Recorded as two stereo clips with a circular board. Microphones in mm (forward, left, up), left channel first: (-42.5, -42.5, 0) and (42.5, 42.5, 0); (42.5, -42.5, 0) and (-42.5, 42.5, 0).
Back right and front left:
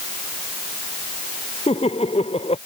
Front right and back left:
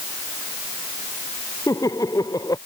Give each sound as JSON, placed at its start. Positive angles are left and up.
{"t": 1.7, "sound": "laughter", "azimuth_deg": -105}